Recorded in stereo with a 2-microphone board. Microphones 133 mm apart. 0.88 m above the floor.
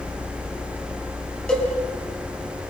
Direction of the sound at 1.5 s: 5° left (ahead or behind).